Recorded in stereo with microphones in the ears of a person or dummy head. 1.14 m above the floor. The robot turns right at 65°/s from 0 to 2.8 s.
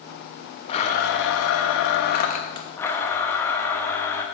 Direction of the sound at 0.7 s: 40° left.